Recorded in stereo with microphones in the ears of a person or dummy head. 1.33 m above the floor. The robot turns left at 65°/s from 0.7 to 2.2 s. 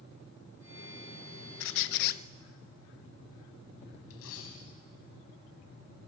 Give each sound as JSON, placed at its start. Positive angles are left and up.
{"t": 1.6, "sound": "a squeak", "azimuth_deg": 90, "distance_m": 0.7}
{"t": 4.1, "sound": "a dropped coin", "side_deg": 80, "distance_m": 5.5}